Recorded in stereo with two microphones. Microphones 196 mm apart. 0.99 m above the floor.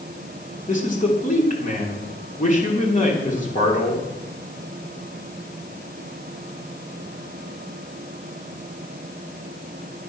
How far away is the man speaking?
About 3.5 m.